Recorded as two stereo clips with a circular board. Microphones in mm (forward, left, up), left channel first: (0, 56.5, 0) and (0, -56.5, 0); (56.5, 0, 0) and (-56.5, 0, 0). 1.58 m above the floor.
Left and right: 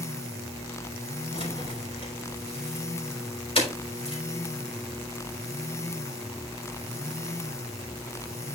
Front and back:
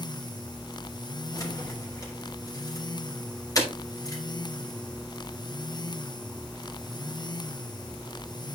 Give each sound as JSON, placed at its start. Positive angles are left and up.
{"t": 1.3, "sound": "keys jangling", "azimuth_deg": 55, "distance_m": 3.5}